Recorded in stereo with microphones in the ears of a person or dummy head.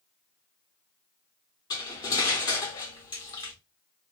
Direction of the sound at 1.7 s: 25° left (ahead or behind).